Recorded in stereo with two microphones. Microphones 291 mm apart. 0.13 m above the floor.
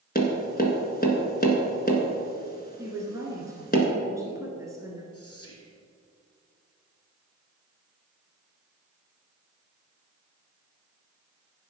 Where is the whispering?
55° left (ahead or behind), 3 m.